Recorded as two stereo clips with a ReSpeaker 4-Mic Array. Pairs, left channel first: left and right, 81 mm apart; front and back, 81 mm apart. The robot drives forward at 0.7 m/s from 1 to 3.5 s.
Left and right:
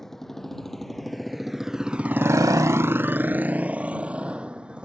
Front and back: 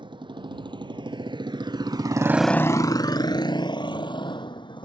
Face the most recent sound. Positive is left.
turn(degrees=-10)